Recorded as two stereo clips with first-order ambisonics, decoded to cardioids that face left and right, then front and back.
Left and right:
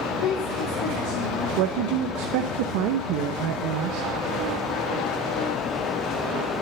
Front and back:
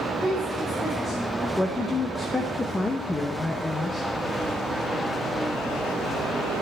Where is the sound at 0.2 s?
75° left, 3.5 m; by 1.5 s 90° left, 3 m.